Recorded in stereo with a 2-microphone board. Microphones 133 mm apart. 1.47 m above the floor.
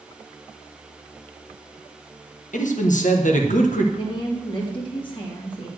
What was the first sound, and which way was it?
A man speaking, 70° left (ahead or behind).